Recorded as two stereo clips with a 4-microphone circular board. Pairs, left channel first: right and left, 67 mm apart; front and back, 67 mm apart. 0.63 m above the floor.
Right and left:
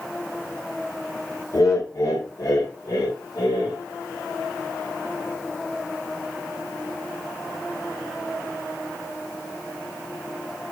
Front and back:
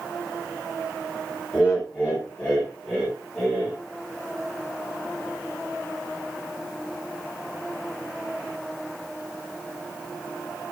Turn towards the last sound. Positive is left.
turn(degrees=-70)